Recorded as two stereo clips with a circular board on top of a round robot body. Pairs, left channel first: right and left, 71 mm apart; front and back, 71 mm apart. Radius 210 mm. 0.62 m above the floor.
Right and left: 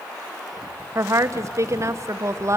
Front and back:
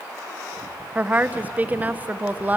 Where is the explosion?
I don't hear an explosion.